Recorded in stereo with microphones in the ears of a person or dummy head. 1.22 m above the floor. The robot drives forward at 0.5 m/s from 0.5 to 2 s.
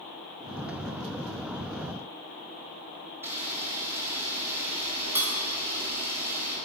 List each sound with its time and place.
3.2 s a camera shutter: 20° right (ahead or behind), 0.8 m